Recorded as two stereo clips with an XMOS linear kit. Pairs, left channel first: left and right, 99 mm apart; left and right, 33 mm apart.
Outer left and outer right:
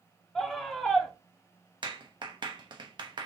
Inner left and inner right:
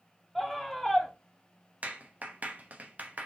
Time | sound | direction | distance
0.3 | a scream | 5° left (ahead or behind) | 0.7 m
1.8 | a clap | 50° right (ahead or behind) | 1.0 m